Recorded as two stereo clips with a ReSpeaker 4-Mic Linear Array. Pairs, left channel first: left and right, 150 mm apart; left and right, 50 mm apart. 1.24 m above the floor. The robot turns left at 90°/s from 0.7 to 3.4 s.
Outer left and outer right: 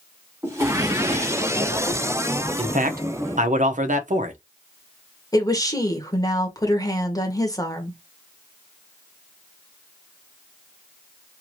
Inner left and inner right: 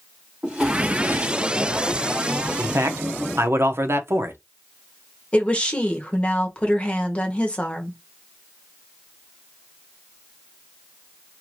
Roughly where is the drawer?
Ahead.